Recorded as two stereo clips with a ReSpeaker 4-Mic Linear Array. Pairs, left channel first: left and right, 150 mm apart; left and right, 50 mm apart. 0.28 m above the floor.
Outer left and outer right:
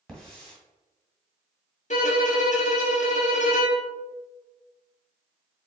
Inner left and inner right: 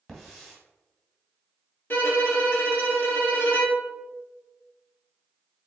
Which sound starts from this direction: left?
A violin, at 1.9 s.